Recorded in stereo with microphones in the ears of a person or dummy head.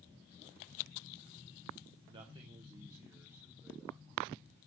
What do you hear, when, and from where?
2.1 s a man speaking: 35° right (ahead or behind), 1.2 m; by 4.0 s 10° right (ahead or behind), 2 m